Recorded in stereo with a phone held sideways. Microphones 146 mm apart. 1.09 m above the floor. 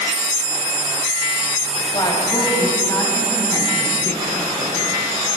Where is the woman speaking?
30° left (ahead or behind), 6 m; by 4.9 s 20° left (ahead or behind), 8.5 m.